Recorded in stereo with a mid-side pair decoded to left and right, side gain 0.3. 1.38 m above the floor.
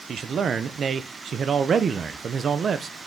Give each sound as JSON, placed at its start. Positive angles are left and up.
{"t": 0.1, "sound": "a man speaking", "azimuth_deg": -70, "distance_m": 0.6}